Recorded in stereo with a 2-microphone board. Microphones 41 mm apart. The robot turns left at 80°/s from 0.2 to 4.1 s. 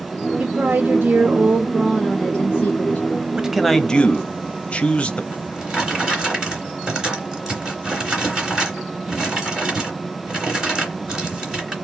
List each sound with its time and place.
0.4 s a woman speaking: 70° right, 1.2 m; by 3.0 s 80° left, 1.2 m
3.4 s a man speaking: 155° right, 0.8 m; by 5.2 s 145° left, 0.8 m
5.3 s a drawer: 15° right (ahead or behind), 2.5 m